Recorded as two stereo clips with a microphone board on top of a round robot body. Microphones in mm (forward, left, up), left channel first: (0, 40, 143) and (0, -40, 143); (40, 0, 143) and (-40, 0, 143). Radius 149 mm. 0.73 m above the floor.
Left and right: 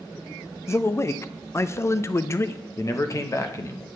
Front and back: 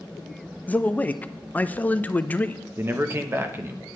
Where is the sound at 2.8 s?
130° left, 1.1 m.